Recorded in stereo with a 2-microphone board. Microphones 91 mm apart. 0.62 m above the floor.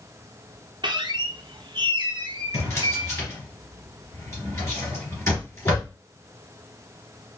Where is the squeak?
60° right (ahead or behind), 0.5 m.